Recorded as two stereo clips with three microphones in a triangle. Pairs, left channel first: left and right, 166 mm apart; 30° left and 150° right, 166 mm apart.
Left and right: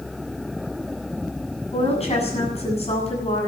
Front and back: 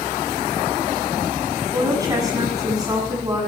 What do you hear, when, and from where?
1.7 s a woman speaking: 140° left, 7.5 m